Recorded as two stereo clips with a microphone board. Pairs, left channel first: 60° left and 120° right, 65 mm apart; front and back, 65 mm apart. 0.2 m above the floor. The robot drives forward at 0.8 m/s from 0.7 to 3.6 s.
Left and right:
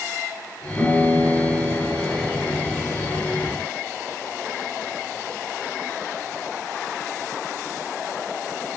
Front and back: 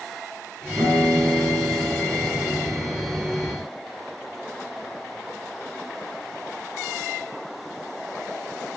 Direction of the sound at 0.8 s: 150° left.